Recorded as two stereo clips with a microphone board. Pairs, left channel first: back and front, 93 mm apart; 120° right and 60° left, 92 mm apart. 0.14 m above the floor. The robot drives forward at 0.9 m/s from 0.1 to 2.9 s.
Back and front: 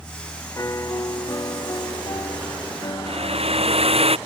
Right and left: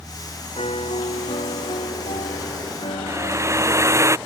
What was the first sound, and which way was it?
A piano, 120° right.